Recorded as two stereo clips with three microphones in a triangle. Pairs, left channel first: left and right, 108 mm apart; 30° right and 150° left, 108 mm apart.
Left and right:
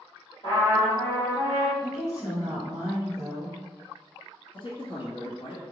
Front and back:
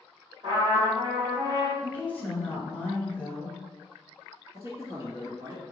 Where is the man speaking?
95° left, 2.0 m.